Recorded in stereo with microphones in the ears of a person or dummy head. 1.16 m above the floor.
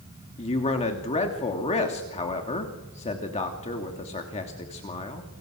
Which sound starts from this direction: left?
A man speaking, at 0.4 s.